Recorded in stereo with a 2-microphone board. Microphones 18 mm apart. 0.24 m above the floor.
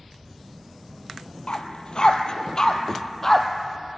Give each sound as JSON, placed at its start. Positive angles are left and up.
{"t": 1.5, "sound": "a dog barking", "side_deg": 60, "distance_m": 1.4}